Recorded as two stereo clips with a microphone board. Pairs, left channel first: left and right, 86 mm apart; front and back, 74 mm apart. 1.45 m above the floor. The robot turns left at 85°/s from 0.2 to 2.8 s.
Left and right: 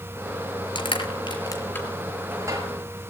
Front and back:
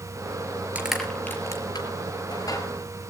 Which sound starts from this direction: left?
Crushing, at 0.8 s.